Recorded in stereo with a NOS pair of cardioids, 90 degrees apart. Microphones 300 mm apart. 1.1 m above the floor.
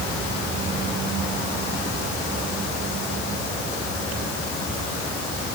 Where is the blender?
I don't hear a blender.